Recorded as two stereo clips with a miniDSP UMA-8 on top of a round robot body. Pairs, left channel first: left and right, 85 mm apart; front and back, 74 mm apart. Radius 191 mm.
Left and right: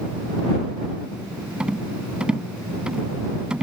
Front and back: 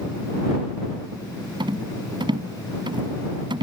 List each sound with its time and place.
1.6 s a rattle: 170° right